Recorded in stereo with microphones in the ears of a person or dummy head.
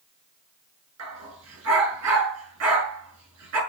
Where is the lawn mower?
I don't hear a lawn mower.